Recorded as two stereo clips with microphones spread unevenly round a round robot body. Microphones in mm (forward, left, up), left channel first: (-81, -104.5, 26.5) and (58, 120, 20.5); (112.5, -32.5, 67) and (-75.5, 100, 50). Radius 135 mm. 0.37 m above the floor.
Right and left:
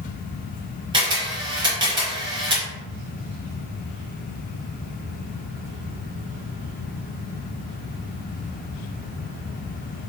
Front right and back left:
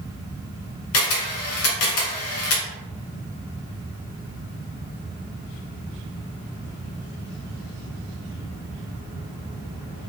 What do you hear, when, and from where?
0.9 s a camera shutter: 15° right, 0.8 m